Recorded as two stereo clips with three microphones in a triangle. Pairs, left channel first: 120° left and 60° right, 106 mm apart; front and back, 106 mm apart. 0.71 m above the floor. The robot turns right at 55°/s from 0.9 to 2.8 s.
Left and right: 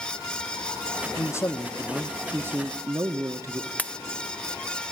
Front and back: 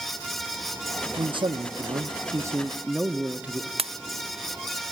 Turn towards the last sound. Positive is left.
turn(degrees=-165)